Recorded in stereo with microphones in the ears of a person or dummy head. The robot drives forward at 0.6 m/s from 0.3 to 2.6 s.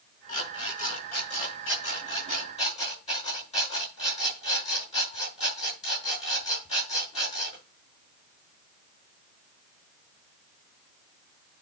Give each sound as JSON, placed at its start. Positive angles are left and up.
{"t": 0.3, "sound": "an alarm clock", "side_deg": 45, "distance_m": 6.5}